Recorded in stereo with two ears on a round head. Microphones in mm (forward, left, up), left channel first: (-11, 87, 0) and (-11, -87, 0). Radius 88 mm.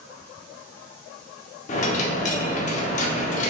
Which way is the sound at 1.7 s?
40° left (ahead or behind).